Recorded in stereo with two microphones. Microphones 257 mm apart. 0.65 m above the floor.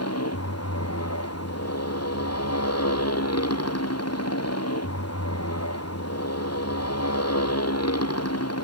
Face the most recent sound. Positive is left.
turn(degrees=70)  # may be behind; listen again after turning